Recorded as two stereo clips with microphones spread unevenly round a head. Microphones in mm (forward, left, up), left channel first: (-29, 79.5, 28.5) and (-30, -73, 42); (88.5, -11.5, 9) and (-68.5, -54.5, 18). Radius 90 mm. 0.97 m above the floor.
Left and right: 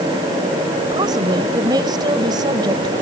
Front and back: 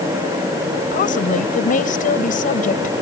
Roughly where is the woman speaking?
Ahead right.